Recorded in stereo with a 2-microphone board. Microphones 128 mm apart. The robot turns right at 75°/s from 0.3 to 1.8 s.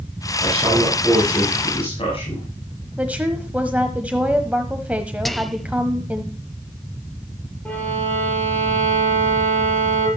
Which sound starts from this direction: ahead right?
A man speaking, at 0.4 s.